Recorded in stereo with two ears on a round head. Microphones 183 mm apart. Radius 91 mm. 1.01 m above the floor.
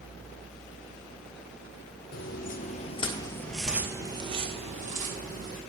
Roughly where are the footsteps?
Left.